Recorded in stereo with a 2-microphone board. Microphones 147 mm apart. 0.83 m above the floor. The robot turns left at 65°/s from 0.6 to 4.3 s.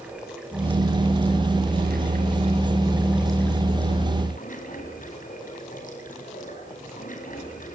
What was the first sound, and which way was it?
Running water, 5° right.